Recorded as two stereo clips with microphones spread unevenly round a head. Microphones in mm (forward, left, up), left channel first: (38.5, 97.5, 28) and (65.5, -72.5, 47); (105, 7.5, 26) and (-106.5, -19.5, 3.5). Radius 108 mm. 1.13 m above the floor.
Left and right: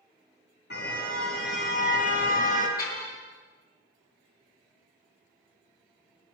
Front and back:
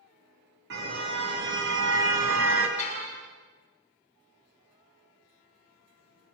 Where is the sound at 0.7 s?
145° left, 5.5 m; by 2.7 s 155° left, 4.5 m.